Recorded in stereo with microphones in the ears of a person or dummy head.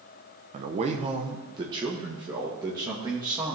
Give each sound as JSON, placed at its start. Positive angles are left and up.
{"t": 0.5, "sound": "a man speaking", "side_deg": -45, "distance_m": 0.9}